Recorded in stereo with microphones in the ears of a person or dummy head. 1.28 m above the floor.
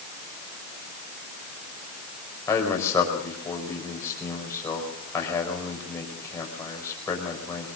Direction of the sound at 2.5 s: 15° left (ahead or behind).